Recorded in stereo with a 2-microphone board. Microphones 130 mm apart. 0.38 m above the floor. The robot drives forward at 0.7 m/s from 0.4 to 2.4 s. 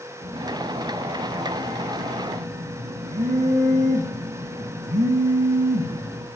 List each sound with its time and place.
0.2 s a phone buzzing: 60° right (ahead or behind), 9.5 m; by 6.3 s 65° right (ahead or behind), 9 m